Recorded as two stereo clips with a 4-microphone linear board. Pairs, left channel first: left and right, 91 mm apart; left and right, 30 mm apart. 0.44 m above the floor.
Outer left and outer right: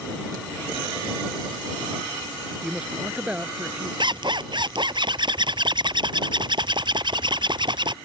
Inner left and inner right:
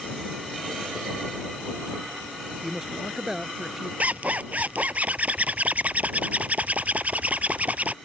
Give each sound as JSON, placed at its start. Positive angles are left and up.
{"t": 2.6, "sound": "a man speaking", "side_deg": -10}
{"t": 4.0, "sound": "a zipper", "side_deg": -55}